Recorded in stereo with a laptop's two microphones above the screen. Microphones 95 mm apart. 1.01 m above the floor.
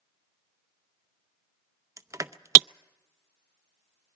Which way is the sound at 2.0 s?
30° right (ahead or behind).